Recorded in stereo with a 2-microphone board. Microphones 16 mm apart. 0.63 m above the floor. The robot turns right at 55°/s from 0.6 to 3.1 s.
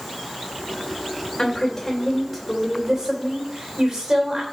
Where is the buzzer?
No buzzer in this recording.